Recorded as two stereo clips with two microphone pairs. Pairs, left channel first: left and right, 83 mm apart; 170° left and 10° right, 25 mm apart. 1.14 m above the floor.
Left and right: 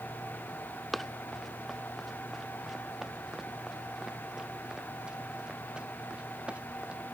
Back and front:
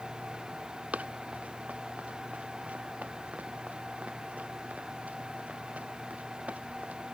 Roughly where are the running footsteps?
Ahead.